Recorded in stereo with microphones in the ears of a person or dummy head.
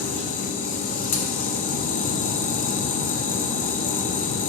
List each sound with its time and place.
0.0 s a machine running: 45° left (ahead or behind), 0.8 m